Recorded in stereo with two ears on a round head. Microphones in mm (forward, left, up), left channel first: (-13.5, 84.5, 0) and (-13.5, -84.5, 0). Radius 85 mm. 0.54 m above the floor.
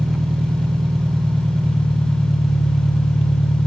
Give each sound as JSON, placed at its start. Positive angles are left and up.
{"t": 0.0, "sound": "an engine running", "side_deg": 0, "distance_m": 1.0}